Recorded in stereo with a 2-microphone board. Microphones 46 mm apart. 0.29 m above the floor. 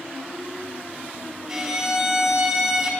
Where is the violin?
10° right (ahead or behind), 2 m.